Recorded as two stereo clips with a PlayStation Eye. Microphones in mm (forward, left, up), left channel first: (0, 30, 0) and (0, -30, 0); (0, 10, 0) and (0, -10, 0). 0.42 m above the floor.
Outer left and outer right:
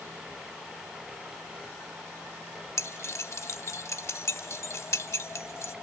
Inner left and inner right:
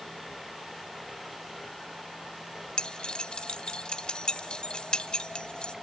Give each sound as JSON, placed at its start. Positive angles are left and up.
{"t": 2.8, "sound": "keys jangling", "side_deg": 50, "distance_m": 1.1}